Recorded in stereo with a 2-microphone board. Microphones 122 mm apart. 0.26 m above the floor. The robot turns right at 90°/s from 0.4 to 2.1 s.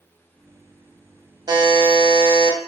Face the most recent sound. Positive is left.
turn(degrees=-75)